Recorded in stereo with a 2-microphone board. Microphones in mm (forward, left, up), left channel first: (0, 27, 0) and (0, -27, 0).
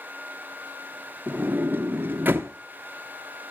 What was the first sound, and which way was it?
A sliding door, 40° right (ahead or behind).